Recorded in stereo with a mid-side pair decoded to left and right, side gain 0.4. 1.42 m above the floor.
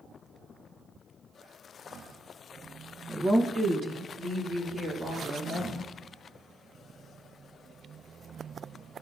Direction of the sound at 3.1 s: 15° right.